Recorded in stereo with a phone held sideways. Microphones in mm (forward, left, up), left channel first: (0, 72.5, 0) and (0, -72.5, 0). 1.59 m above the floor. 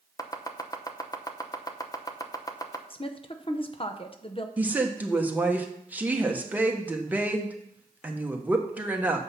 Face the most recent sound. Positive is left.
turn(degrees=-10)  # may be behind; listen again after turning